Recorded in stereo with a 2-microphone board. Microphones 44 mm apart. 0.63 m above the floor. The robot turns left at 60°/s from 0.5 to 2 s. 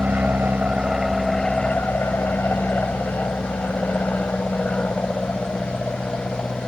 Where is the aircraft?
35° right (ahead or behind); by 6.7 s 30° left (ahead or behind).